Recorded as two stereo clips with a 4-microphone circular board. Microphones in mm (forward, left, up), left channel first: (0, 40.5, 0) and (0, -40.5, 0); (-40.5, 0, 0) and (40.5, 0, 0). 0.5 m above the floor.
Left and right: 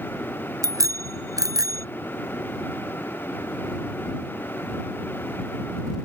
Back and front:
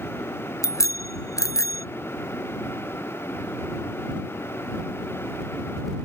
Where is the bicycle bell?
135° right; by 1.9 s 130° right.